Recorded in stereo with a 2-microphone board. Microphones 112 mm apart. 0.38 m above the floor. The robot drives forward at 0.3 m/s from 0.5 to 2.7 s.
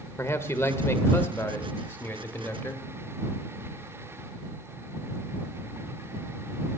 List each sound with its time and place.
0.2 s a man speaking: 25° left (ahead or behind), 1.0 m; by 2.9 s 15° left (ahead or behind), 1.4 m